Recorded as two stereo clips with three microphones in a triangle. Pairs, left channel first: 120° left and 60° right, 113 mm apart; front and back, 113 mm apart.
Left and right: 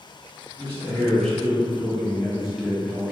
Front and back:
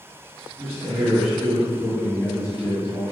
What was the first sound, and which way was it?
A man speaking, 170° right.